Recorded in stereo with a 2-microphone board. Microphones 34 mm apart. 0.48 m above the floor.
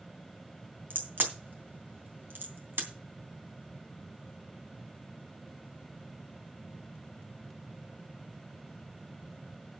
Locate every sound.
0.9 s a crack: 80° right, 3 m